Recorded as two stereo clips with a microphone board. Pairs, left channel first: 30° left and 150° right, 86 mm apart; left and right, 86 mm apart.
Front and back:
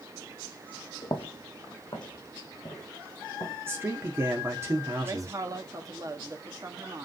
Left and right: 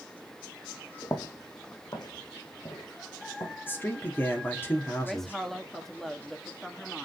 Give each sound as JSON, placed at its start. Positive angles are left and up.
{"t": 1.0, "sound": "footsteps", "azimuth_deg": 50, "distance_m": 1.3}
{"t": 3.7, "sound": "a man speaking", "azimuth_deg": 150, "distance_m": 1.6}
{"t": 5.0, "sound": "a woman speaking", "azimuth_deg": 175, "distance_m": 1.3}